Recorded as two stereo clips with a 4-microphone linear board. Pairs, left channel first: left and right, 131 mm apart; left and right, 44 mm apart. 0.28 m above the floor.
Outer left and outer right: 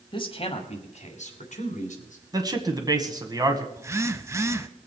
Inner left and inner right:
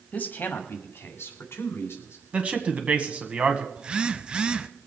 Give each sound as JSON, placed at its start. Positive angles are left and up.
{"t": 0.1, "sound": "a man speaking", "side_deg": 35, "distance_m": 1.5}
{"t": 2.3, "sound": "a man speaking", "side_deg": -25, "distance_m": 1.8}
{"t": 3.8, "sound": "a phone buzzing", "side_deg": -20, "distance_m": 0.6}